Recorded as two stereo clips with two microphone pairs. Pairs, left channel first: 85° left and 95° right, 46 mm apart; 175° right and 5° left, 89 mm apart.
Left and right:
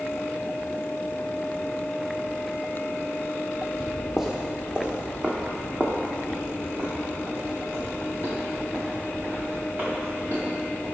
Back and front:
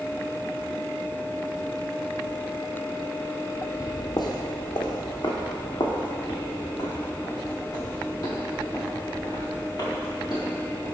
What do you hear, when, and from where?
3.8 s footsteps: 170° left, 0.9 m; by 10.8 s 135° right, 4.5 m